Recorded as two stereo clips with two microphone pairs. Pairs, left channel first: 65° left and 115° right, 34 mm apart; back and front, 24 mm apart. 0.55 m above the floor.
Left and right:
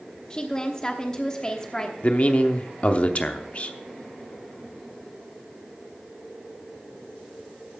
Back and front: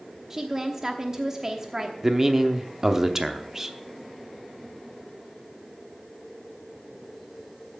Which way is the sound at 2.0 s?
60° left.